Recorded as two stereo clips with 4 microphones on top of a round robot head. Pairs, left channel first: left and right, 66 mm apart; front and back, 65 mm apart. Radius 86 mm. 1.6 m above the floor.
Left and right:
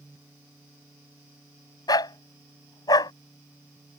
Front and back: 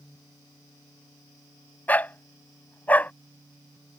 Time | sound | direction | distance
1.9 | a dog barking | 70° left | ?